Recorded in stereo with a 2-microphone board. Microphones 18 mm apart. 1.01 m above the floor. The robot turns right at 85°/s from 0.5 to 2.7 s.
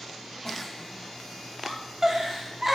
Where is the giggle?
25° left (ahead or behind), 0.6 m; by 2.8 s 20° right (ahead or behind), 0.6 m.